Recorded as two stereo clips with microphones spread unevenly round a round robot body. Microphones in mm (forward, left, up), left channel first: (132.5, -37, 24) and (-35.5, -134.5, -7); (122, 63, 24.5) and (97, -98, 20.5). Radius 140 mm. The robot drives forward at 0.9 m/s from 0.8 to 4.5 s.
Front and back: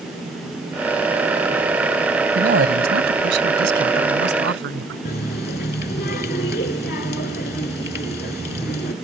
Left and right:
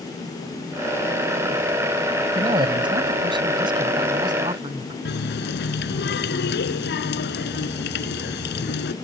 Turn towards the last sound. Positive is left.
turn(degrees=90)